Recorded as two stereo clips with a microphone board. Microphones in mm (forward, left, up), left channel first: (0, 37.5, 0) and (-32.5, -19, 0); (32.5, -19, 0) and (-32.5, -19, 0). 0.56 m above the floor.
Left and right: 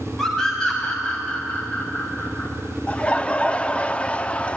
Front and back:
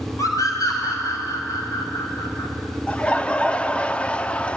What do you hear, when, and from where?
0.2 s a scream: 25° right, 3 m; by 2.5 s 5° left, 2 m
2.9 s laughter: 35° left, 0.6 m